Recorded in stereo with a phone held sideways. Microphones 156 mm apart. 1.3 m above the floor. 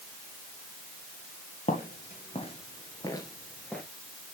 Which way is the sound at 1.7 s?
50° left (ahead or behind).